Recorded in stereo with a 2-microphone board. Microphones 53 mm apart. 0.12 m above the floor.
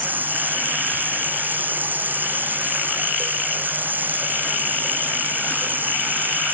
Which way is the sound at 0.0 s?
35° right (ahead or behind).